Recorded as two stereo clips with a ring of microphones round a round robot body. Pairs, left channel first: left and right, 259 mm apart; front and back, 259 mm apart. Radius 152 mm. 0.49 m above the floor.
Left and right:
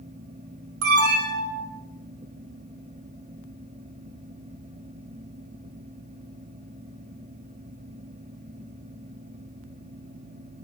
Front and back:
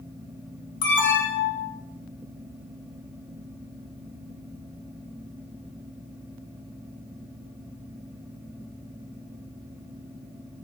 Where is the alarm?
50° right, 3 m.